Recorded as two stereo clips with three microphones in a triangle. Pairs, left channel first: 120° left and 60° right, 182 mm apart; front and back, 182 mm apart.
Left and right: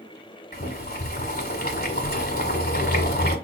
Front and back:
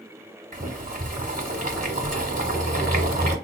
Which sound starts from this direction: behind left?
Boiling, at 0.5 s.